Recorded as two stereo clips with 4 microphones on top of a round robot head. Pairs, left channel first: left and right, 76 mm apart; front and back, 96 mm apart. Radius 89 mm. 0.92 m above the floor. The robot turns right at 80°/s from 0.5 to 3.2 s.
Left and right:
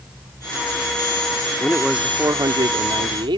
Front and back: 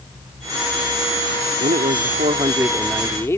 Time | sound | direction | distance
1.6 | a man speaking | 165° left | ?